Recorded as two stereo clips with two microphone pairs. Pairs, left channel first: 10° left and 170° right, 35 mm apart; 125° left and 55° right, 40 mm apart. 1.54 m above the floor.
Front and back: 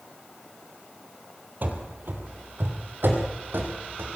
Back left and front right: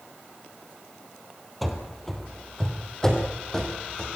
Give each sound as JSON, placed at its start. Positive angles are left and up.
{"t": 1.6, "sound": "running footsteps", "azimuth_deg": -150, "distance_m": 3.0}